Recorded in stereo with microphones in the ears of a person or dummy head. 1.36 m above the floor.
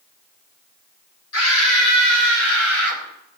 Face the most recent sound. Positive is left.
turn(degrees=60)  # may be behind; listen again after turning